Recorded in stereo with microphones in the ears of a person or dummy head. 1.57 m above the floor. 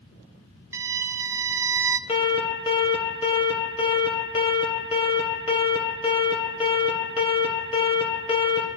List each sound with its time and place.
0.7 s a violin: 15° right (ahead or behind), 0.5 m
2.1 s an alarm: 30° left (ahead or behind), 2.0 m